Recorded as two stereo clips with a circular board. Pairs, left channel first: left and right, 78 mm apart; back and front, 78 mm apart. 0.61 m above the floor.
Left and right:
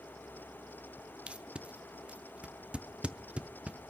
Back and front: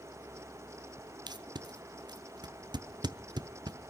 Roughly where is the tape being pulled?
Ahead.